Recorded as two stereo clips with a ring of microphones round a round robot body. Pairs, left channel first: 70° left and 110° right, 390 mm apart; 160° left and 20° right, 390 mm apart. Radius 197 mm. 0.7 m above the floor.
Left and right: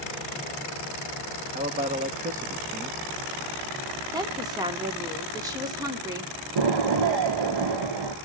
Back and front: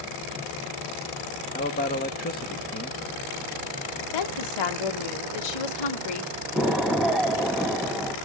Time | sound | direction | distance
1.5 | a man speaking | 160° right | 1.2 m
4.1 | a woman speaking | 165° left | 1.9 m
6.5 | an explosion | 110° right | 1.8 m